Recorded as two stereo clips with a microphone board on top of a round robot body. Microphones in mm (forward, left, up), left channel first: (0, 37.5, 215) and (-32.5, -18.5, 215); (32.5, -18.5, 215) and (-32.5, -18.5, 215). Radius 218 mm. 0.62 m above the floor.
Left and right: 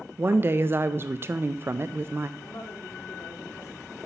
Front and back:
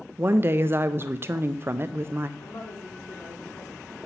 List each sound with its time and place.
0.2 s a woman speaking: 150° right, 0.6 m
2.4 s a woman speaking: 20° left, 2 m